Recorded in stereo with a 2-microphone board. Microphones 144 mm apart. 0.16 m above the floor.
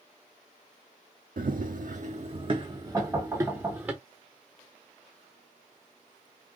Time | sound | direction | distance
1.4 | running footsteps | 85° right | 0.6 m
2.9 | knocking | 15° right (ahead or behind) | 1.8 m